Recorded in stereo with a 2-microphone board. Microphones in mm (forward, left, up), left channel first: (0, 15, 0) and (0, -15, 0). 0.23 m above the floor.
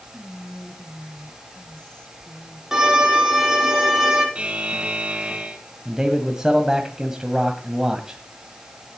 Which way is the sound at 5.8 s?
20° right (ahead or behind).